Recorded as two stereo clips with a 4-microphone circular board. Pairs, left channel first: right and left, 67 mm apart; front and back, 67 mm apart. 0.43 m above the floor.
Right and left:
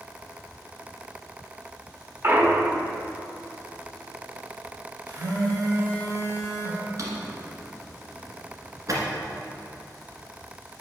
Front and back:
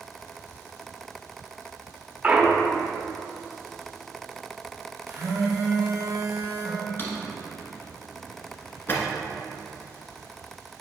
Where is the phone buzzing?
120° left, 2.5 m.